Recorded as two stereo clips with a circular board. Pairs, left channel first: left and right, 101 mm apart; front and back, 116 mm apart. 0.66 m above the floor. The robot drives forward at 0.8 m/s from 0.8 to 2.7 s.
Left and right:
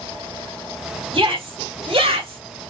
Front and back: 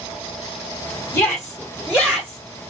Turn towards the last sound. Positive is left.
turn(degrees=-120)